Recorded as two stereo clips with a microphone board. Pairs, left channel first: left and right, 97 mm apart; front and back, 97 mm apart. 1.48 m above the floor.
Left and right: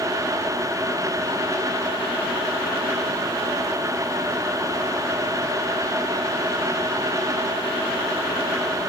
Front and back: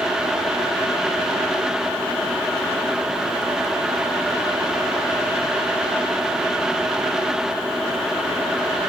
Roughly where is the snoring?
No snoring in this recording.